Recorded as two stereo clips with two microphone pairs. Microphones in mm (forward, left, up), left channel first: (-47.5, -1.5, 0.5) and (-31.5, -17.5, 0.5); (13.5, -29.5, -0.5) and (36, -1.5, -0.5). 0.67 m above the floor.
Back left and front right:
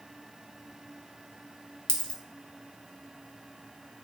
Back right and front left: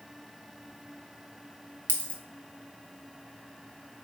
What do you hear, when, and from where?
1.9 s a dropped coin: straight behind, 0.5 m